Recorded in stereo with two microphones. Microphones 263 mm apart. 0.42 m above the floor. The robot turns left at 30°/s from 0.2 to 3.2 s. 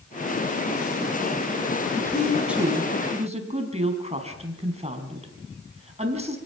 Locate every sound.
2.0 s a woman speaking: 10° left, 4 m; by 6.4 s 25° right, 4 m